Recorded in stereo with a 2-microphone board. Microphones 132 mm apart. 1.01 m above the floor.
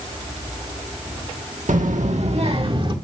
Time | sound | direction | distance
1.7 | a child speaking | 85° right | 1.4 m